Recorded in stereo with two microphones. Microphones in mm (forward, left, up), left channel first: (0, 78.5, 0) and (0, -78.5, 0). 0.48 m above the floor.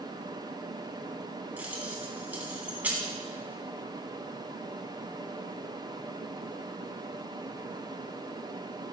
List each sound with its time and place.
1.6 s keys jangling: 10° right (ahead or behind), 3 m